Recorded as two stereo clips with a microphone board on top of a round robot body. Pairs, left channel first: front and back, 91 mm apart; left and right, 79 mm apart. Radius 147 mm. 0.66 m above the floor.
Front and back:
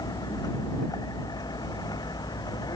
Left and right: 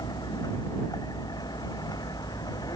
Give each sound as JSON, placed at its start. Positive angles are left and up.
{"t": 0.0, "sound": "a vehicle", "azimuth_deg": 50}